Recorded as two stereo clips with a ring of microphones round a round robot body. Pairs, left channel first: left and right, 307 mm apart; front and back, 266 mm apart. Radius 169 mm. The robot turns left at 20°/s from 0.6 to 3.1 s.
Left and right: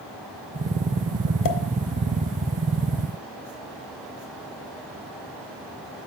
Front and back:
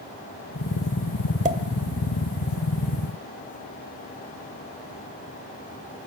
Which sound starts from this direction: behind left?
A pop, at 1.4 s.